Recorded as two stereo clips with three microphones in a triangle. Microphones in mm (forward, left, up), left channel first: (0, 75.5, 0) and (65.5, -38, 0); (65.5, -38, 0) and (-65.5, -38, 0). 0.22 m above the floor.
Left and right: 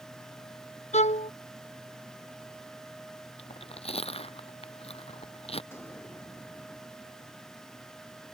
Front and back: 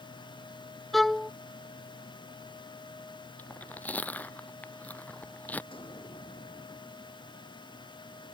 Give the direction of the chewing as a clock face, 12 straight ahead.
9 o'clock.